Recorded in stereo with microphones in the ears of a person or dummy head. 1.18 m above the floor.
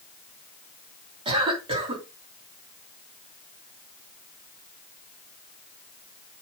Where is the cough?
25° right (ahead or behind), 3 m.